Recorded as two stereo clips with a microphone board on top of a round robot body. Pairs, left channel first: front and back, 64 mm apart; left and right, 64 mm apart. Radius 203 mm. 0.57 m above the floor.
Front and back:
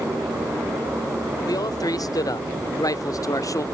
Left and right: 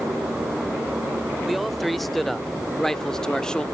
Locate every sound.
1.4 s a man speaking: straight ahead; by 3.6 s 15° left